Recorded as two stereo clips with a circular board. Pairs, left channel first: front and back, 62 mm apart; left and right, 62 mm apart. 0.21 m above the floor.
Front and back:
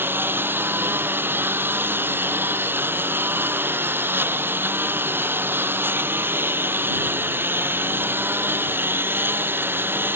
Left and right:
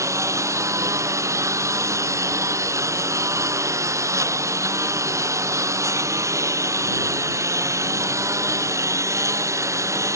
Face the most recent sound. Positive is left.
turn(degrees=-125)